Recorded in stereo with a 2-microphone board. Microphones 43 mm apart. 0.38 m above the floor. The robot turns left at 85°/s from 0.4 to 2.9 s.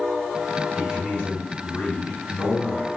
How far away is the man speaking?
About 1.8 m.